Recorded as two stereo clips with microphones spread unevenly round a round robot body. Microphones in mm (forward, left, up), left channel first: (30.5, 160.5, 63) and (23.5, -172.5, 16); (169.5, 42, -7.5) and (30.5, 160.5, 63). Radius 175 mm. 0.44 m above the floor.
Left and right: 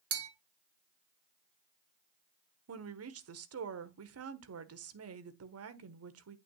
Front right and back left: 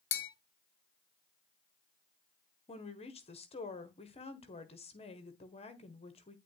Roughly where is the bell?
Ahead right.